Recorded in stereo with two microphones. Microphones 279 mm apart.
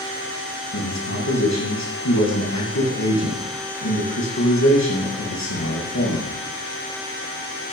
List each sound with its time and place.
0.7 s a man speaking: 75° left (ahead or behind), 5 m